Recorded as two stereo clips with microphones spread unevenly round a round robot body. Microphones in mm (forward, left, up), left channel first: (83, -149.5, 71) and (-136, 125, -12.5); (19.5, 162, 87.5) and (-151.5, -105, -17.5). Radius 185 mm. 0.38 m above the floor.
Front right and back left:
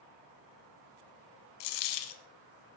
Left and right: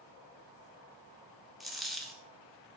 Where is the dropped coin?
30° right, 0.9 m.